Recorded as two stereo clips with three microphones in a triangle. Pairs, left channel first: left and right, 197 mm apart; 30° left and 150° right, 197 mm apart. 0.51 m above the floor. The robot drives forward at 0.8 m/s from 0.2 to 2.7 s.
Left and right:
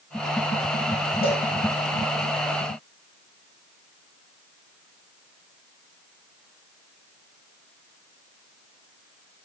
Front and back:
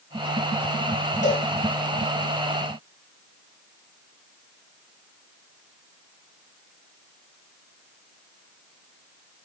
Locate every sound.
1.2 s a cowbell: 50° left, 6.5 m